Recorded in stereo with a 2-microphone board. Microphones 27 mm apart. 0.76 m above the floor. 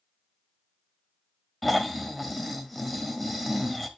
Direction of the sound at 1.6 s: Centre (ahead or behind).